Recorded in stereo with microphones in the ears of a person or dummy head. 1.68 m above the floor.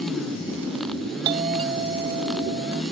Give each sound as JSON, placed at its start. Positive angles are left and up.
{"t": 1.2, "sound": "a doorbell", "side_deg": -25}